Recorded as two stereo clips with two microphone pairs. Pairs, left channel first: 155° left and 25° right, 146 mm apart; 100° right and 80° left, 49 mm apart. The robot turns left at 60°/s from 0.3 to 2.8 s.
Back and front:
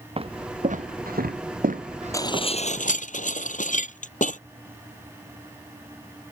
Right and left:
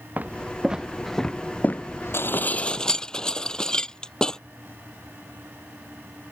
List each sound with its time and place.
0.2 s footsteps: 25° left; by 3.0 s 105° right
2.1 s dishes clattering: 140° right; by 4.4 s 175° right